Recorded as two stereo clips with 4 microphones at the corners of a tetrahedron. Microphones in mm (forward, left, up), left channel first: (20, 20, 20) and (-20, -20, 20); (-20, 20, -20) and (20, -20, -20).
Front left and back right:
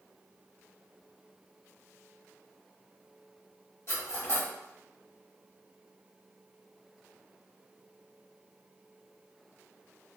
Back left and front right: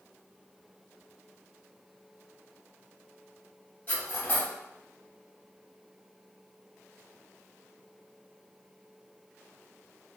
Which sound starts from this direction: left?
Cutlery clinking, at 3.9 s.